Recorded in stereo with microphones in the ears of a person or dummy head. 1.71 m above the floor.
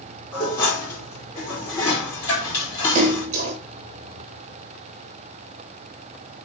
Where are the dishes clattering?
15° left (ahead or behind), 2.5 m.